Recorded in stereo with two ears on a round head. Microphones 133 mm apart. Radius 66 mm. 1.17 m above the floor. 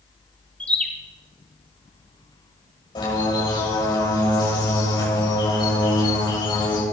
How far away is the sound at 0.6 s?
About 1.3 m.